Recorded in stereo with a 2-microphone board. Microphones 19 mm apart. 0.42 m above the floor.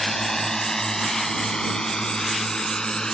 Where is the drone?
20° left (ahead or behind); by 3.1 s 40° left (ahead or behind).